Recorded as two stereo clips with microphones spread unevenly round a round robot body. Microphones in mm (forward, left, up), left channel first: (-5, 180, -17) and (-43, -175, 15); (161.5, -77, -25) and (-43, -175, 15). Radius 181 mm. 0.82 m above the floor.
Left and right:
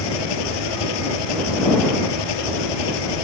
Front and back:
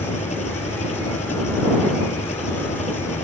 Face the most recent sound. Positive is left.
turn(degrees=100)